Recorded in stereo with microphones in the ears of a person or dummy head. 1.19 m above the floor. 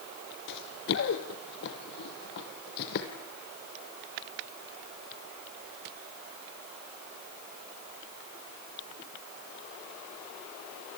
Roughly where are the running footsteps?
Left.